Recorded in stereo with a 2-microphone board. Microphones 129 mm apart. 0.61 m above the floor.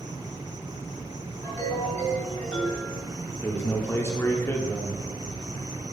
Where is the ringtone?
25° left (ahead or behind), 2 m.